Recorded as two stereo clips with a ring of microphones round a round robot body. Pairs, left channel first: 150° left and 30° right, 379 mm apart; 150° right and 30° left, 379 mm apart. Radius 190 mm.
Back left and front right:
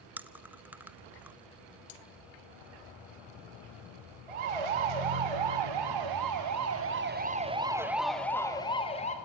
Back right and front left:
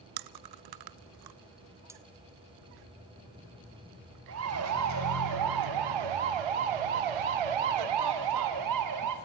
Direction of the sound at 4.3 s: 25° right.